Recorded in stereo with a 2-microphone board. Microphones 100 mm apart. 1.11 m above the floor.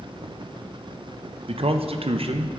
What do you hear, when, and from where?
1.5 s a man speaking: 65° right (ahead or behind), 0.7 m